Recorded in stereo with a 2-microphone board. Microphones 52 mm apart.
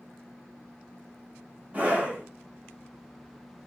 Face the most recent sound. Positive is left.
turn(degrees=-30)  # may be behind; listen again after turning